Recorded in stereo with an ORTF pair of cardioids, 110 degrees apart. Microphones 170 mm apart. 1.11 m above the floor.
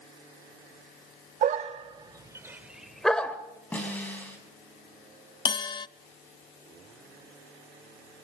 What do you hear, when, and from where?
1.4 s a dog barking: 50° right, 1.6 m; by 3.4 s 10° left, 2 m
3.7 s a snare drum: 10° left, 7 m
5.5 s a bell: 25° left, 0.5 m